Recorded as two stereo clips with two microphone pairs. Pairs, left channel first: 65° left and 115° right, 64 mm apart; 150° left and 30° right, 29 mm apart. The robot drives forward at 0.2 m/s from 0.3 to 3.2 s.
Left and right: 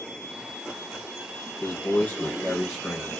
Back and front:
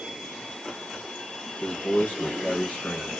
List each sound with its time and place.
1.6 s a man speaking: 130° left, 0.6 m; by 3.2 s 145° left, 0.9 m